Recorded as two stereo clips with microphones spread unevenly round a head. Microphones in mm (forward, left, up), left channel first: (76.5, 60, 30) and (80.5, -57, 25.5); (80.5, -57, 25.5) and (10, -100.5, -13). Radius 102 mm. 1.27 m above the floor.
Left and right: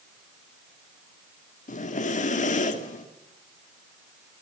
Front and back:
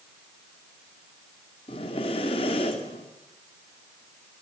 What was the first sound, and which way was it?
Breathing, 75° left.